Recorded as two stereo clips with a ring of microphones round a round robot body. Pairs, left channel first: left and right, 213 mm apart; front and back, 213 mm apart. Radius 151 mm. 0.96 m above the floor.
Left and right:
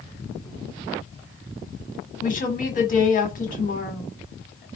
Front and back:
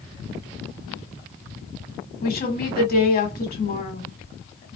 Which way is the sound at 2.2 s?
40° left.